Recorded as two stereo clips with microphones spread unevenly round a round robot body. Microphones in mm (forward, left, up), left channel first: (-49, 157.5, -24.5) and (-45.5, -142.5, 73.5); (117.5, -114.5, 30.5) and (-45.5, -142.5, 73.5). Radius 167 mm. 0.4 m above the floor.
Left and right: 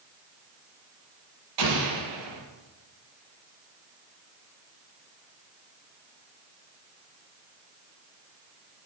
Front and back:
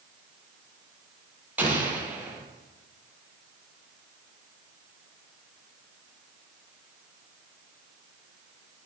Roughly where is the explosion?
Right.